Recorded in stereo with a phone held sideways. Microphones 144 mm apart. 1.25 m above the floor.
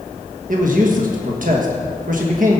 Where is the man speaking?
65° right (ahead or behind), 1.4 m.